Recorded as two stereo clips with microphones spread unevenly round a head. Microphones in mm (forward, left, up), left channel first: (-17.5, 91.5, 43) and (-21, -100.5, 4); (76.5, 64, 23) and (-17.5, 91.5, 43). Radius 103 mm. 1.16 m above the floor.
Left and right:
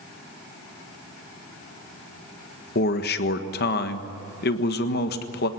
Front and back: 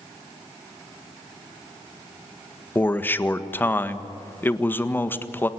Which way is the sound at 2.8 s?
45° left.